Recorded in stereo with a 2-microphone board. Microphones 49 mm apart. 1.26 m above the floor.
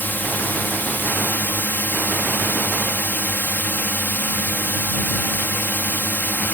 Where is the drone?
40° left (ahead or behind).